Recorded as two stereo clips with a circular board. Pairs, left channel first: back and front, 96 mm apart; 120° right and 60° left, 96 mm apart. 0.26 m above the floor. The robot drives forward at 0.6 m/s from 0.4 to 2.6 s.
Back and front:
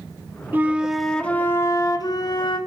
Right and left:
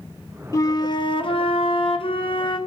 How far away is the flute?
About 0.8 m.